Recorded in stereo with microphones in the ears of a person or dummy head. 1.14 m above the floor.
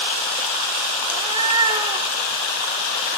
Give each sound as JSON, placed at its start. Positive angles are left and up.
{"t": 1.1, "sound": "a cat meowing", "side_deg": -25, "distance_m": 0.5}